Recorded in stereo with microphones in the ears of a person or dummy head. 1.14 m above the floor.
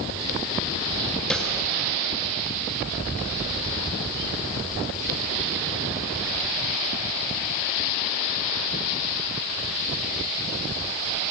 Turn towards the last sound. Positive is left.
turn(degrees=5)  # may be behind; listen again after turning